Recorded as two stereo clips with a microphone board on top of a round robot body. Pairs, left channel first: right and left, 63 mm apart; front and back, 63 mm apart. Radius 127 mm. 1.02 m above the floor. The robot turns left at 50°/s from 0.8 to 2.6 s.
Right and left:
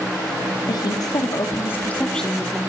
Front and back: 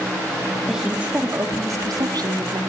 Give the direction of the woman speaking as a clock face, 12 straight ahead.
3 o'clock.